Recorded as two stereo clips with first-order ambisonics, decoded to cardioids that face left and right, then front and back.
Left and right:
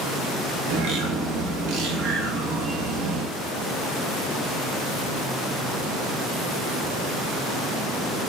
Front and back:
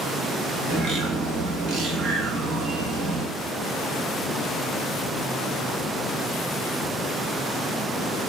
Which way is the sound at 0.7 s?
120° right.